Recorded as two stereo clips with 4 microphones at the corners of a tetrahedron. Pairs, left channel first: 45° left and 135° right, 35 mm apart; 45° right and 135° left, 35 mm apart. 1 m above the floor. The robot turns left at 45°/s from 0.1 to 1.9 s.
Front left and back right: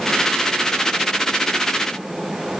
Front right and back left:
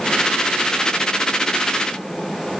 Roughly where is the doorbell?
No doorbell in this recording.